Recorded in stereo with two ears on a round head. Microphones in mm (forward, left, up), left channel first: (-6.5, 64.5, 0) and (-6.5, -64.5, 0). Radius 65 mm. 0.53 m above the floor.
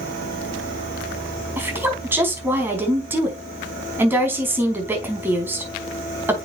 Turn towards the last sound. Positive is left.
turn(degrees=-15)  # may be behind; listen again after turning